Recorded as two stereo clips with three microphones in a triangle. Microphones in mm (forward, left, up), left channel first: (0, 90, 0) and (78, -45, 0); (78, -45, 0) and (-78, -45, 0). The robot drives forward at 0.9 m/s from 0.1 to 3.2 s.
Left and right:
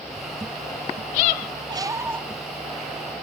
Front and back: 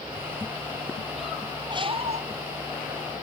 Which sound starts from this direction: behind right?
A squeak, at 1.7 s.